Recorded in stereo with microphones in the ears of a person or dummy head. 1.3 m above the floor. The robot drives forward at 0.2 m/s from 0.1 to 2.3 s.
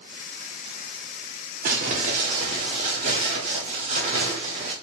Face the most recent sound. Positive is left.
turn(degrees=-40)  # may be behind; listen again after turning